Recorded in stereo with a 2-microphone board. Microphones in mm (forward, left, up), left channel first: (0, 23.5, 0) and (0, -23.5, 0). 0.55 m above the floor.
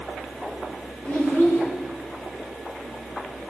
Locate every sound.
1.1 s a child speaking: 40° left (ahead or behind), 3 m